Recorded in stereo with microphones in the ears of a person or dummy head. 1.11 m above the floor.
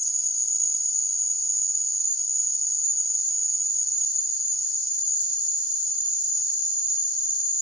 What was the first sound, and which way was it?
An insect, 50° right (ahead or behind).